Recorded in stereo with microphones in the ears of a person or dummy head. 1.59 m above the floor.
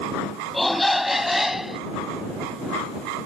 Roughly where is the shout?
Centre.